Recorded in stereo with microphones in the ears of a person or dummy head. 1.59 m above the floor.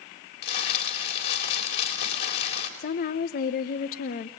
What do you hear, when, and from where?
0.4 s crumpling: 60° left (ahead or behind), 4 m
2.8 s a woman speaking: 55° left (ahead or behind), 0.9 m